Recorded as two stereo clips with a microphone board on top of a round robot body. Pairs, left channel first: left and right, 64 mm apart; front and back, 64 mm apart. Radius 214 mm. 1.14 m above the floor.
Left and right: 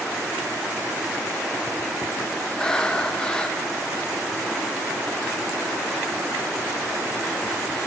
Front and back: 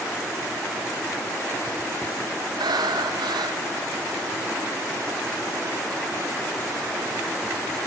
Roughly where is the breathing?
Behind.